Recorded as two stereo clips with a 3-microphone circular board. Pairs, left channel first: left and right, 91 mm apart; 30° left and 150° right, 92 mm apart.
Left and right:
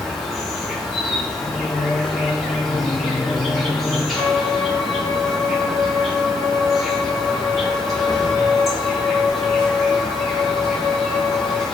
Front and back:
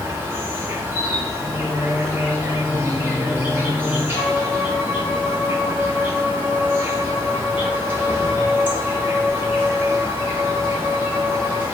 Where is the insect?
Straight behind, 1.0 m.